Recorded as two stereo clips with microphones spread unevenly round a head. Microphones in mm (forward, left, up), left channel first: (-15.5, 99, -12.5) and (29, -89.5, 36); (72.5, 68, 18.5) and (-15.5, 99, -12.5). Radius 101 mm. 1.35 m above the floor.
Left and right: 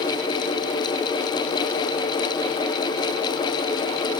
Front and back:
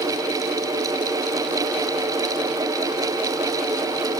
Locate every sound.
Only background noise.